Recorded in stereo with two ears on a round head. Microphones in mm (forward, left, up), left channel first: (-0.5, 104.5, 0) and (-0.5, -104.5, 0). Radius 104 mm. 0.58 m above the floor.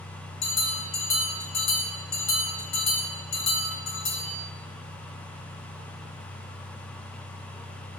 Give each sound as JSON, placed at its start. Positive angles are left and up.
{"t": 0.4, "sound": "a bell", "side_deg": 70, "distance_m": 3.5}